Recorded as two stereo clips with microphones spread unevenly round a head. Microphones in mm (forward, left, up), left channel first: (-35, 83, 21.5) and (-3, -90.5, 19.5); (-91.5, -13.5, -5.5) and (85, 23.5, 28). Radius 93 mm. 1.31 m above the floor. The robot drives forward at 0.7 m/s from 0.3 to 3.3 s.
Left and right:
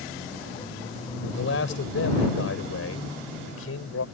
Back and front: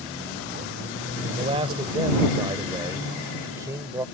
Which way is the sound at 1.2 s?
70° left.